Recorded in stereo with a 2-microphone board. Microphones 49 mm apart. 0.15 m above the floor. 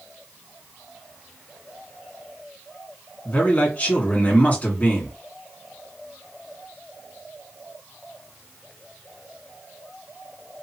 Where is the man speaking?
30° left (ahead or behind), 1.8 m.